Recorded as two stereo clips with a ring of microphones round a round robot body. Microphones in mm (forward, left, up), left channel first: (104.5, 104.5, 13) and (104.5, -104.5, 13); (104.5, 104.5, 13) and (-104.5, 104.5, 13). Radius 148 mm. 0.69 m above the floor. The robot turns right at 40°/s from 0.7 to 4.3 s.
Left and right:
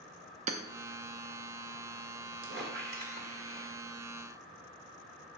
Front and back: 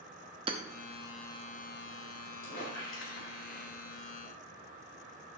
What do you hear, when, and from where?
0.5 s hammering: 125° right, 0.7 m
2.4 s a squeak: 65° right, 1.8 m; by 3.7 s 15° right, 1.8 m